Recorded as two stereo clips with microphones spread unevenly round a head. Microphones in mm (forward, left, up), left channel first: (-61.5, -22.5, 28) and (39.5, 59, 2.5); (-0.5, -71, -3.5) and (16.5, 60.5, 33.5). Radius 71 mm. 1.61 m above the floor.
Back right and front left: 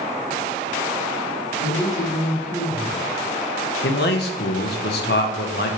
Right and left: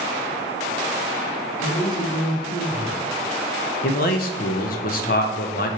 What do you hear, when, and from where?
1.6 s a woman speaking: 65° right, 2.5 m; by 3.1 s 85° right, 2.5 m
3.8 s a man speaking: 115° right, 0.7 m